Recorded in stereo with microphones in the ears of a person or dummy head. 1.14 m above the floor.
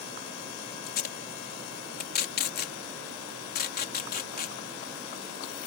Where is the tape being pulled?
45° left (ahead or behind).